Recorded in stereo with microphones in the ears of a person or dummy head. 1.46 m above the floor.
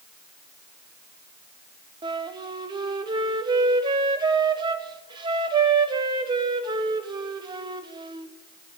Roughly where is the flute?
Right.